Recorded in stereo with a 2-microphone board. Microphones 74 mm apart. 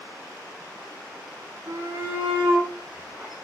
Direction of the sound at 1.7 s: 30° right (ahead or behind).